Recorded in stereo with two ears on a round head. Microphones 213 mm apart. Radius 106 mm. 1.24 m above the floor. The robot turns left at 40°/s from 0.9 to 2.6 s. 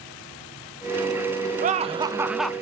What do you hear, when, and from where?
1.6 s laughter: 145° right, 0.8 m; by 2.5 s 175° left, 0.8 m